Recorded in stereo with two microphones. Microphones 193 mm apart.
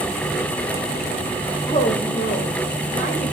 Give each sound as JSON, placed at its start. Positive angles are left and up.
{"t": 1.7, "sound": "a woman speaking", "side_deg": 35, "distance_m": 2.5}